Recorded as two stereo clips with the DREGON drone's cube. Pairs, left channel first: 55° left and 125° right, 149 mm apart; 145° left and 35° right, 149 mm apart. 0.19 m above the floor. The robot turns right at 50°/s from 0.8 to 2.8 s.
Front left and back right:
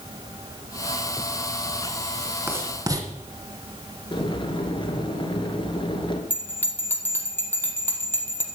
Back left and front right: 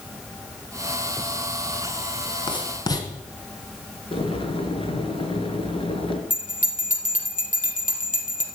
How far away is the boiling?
About 1.8 m.